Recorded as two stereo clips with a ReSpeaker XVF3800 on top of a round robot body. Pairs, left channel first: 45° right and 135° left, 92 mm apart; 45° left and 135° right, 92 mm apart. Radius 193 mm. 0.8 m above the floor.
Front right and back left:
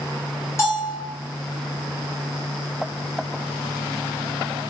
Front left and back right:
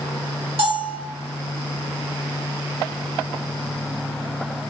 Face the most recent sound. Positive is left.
turn(degrees=-105)